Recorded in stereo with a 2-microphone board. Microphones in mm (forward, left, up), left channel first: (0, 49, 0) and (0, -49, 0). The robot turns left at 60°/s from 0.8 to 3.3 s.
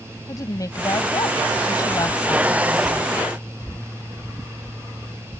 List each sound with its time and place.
0.3 s a woman speaking: 125° left; by 3.2 s 15° right